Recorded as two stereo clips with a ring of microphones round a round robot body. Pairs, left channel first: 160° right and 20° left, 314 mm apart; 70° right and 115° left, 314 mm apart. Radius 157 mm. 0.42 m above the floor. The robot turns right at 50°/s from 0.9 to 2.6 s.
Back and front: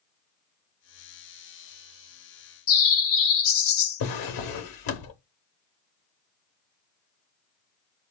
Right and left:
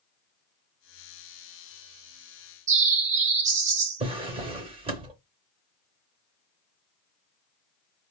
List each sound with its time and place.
2.7 s a bird: 175° left, 0.5 m
4.0 s a drawer: 175° right, 0.7 m